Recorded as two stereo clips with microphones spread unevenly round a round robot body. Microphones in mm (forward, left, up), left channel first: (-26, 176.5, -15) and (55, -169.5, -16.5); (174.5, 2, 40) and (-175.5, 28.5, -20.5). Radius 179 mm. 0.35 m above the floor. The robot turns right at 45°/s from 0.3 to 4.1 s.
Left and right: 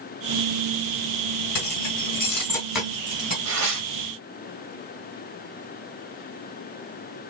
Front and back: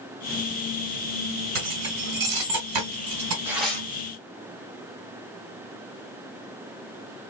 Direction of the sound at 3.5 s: 110° right.